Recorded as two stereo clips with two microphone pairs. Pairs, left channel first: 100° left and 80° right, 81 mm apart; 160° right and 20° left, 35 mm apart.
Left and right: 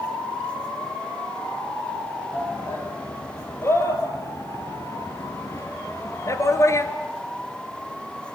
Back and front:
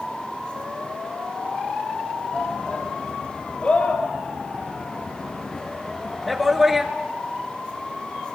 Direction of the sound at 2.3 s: 155° left.